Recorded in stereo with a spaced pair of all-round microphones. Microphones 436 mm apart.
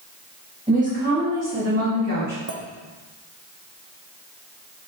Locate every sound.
0.7 s a woman speaking: 15° right (ahead or behind), 2 m; by 2.4 s 40° right (ahead or behind), 2.5 m
2.5 s a clink: 35° right (ahead or behind), 0.8 m